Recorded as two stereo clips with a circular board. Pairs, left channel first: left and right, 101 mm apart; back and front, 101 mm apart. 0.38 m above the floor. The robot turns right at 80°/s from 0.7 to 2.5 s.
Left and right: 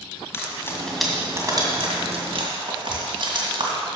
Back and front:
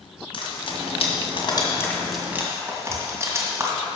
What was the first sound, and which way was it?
Frying, 155° left.